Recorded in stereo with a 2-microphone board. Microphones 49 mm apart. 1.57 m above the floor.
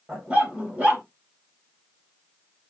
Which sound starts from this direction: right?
A dog barking, at 0.1 s.